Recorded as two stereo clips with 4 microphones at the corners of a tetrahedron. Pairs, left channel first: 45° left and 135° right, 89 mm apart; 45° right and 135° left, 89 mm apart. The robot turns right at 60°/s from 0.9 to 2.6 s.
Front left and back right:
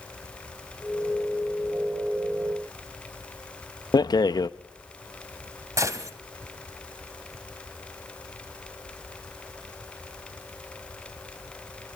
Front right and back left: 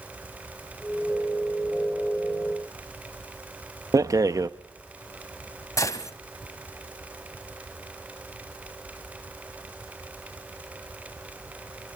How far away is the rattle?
About 0.5 m.